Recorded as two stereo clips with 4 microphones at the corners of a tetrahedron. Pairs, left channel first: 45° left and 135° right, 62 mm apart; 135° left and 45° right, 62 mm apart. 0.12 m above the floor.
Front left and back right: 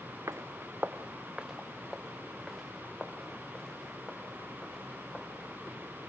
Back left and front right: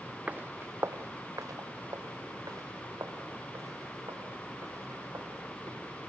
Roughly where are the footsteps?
Right.